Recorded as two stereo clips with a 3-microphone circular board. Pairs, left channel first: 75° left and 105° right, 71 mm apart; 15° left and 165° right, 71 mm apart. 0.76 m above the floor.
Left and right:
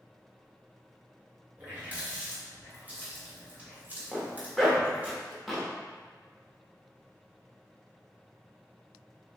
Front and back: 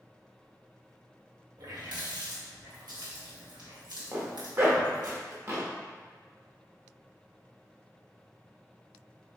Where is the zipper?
170° left, 0.9 m.